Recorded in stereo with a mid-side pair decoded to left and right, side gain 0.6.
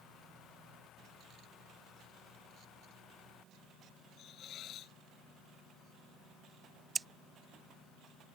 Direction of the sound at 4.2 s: 50° left.